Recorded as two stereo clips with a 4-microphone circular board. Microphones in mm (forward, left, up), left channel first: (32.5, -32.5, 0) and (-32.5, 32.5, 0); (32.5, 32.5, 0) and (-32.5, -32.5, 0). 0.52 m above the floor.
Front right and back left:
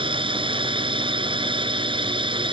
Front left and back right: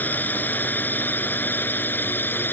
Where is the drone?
115° left; by 2.5 s 110° left.